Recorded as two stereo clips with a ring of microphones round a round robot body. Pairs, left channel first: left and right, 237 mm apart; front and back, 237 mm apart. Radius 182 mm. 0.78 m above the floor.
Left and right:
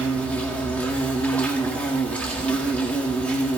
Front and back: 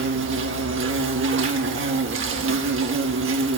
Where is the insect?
175° left, 1.4 m.